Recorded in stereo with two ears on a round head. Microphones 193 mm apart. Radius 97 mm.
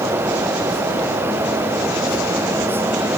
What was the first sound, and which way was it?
Only background noise.